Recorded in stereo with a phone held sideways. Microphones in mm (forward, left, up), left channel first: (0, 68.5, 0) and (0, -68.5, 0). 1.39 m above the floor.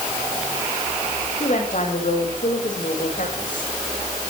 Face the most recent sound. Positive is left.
turn(degrees=70)  # may be behind; listen again after turning